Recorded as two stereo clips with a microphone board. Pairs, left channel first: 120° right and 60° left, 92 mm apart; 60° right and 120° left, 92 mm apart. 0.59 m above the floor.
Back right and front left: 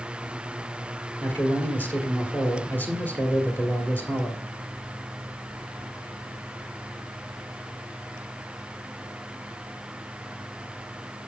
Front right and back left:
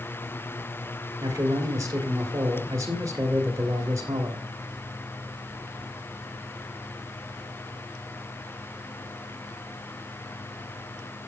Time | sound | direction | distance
1.2 | a man speaking | 175° left | 1.6 m